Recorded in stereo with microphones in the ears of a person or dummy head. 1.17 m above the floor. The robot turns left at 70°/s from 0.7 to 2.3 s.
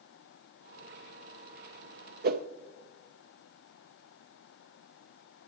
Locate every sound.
2.2 s a whoosh: 50° right (ahead or behind), 0.5 m; by 2.5 s 45° right (ahead or behind), 0.5 m